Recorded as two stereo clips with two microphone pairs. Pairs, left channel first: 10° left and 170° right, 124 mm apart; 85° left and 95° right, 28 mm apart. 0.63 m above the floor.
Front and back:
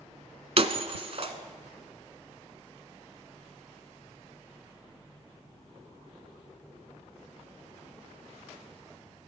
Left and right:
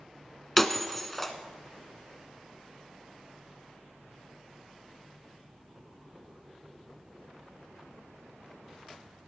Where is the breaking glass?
170° left, 0.9 m.